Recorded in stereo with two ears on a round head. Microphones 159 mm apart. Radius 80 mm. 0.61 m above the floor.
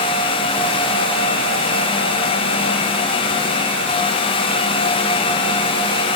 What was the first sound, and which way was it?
Only background noise.